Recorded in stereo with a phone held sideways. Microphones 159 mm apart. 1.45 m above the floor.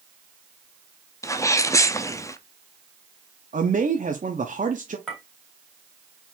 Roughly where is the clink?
Centre.